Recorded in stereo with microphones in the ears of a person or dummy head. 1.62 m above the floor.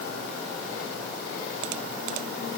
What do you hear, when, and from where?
Only background noise.